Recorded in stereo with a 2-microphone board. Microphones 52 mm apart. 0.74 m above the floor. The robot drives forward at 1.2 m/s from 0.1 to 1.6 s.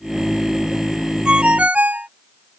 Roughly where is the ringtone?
Centre.